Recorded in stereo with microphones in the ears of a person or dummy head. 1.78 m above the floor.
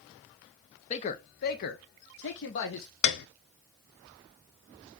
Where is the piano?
60° left (ahead or behind), 0.8 m.